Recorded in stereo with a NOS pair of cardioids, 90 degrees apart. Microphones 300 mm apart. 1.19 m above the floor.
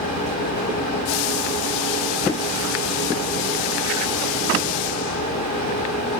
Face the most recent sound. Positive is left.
turn(degrees=60)